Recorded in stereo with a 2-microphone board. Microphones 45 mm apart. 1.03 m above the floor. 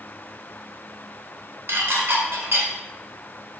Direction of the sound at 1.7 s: 70° right (ahead or behind).